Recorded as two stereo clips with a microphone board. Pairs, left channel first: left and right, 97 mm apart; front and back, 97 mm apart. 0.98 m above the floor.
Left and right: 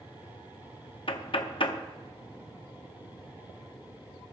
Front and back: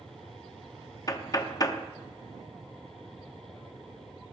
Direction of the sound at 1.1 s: 55° left.